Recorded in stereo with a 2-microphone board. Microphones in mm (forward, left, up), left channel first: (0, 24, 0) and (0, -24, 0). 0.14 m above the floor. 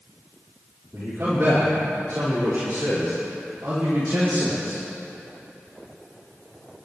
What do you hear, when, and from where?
0.9 s a man speaking: 60° right (ahead or behind), 5.5 m; by 4.8 s 75° right (ahead or behind), 7.5 m